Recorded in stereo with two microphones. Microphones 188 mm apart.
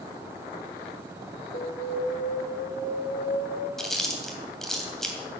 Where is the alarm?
65° left (ahead or behind), 3 m.